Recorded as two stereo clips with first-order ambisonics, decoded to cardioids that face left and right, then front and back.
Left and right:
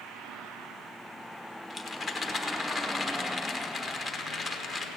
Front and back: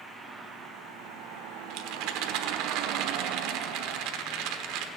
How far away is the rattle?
About 1.1 m.